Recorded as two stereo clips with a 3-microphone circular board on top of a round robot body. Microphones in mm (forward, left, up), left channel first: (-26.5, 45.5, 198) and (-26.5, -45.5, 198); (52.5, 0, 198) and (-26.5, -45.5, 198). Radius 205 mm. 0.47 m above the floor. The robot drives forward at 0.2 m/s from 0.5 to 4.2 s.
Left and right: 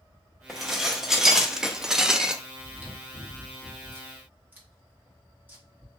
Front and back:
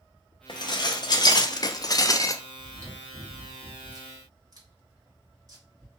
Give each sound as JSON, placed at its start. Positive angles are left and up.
{"t": 0.5, "sound": "dishes clattering", "azimuth_deg": -5, "distance_m": 0.8}
{"t": 2.6, "sound": "chewing", "azimuth_deg": -140, "distance_m": 1.5}